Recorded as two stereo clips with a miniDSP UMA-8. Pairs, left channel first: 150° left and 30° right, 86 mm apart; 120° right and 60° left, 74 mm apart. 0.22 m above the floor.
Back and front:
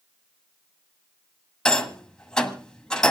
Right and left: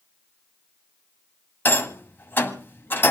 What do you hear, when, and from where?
1.6 s a rattle: 140° right, 1.4 m